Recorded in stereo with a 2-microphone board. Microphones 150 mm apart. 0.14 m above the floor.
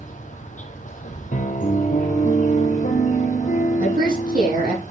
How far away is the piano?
About 1.4 m.